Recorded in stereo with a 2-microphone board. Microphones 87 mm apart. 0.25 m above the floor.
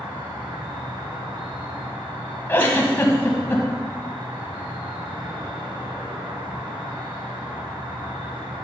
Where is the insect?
70° right (ahead or behind), 1.9 m.